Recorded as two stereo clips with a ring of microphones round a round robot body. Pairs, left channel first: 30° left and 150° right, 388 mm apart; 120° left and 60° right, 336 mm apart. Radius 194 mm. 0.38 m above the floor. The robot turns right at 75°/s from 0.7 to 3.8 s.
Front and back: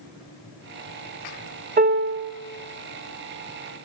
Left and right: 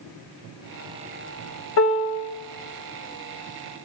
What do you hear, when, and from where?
1.8 s a piano: 150° left, 0.7 m; by 2.3 s 170° right, 0.7 m